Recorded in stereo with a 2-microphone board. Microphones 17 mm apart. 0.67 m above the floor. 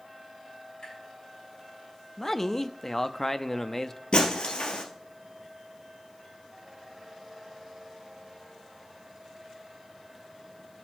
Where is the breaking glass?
65° left (ahead or behind), 2.5 m.